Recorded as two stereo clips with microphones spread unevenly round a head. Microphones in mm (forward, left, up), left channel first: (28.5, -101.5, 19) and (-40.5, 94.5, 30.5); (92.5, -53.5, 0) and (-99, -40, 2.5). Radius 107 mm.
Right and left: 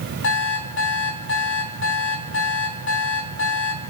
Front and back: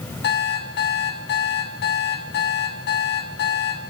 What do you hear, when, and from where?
0.2 s an alarm clock: 35° right, 3 m